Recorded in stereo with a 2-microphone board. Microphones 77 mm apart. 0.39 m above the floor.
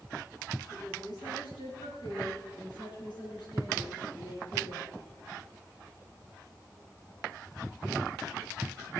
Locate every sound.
0.7 s a woman speaking: 75° left (ahead or behind), 5 m; by 4.9 s 60° left (ahead or behind), 6.5 m